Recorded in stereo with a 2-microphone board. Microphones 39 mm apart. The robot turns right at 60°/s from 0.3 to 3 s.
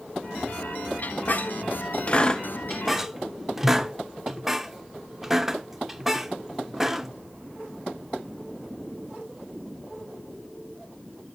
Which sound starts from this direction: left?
A squeak, at 1.0 s.